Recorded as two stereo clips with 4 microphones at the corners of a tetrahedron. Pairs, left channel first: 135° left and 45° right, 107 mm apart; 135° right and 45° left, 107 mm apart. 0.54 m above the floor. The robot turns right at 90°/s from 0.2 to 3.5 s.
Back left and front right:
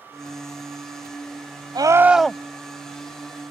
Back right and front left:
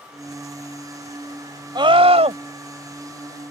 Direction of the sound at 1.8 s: Straight ahead.